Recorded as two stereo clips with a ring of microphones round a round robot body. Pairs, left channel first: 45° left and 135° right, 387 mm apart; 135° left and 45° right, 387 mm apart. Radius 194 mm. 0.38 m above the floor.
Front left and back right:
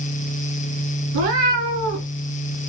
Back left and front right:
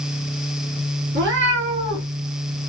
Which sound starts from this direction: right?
A cat meowing, at 1.1 s.